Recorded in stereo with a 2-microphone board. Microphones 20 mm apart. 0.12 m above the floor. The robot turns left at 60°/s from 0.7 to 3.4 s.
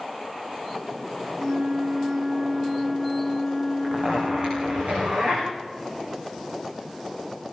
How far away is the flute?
About 0.6 m.